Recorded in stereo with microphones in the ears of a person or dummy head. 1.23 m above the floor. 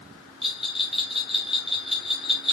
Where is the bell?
5° right (ahead or behind), 2.5 m.